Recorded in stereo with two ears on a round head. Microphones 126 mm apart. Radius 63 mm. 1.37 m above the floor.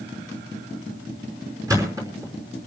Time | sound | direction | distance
1.7 | a thud | 25° right (ahead or behind) | 5.5 m